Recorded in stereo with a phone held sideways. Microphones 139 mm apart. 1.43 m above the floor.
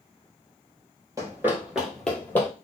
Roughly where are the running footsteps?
Right.